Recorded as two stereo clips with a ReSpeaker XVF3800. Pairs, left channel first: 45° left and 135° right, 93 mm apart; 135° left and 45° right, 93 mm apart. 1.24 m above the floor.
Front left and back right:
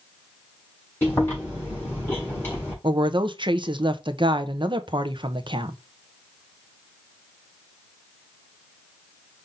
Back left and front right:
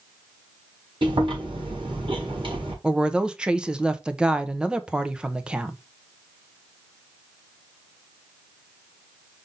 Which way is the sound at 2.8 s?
125° right.